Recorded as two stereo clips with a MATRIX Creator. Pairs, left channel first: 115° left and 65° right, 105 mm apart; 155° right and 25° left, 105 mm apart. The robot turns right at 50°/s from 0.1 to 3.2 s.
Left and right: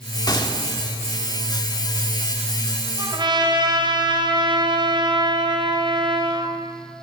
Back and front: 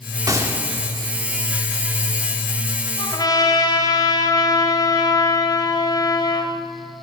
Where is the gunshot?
70° left, 1.6 m; by 0.6 s 90° left, 1.6 m.